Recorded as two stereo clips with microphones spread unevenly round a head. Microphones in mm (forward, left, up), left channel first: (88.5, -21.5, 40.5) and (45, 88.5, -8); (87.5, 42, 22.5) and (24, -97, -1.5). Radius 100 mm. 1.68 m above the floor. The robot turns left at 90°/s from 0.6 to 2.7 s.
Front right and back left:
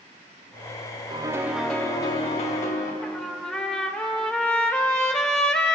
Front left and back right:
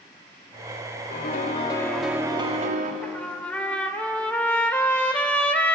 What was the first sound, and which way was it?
A piano, 60° left.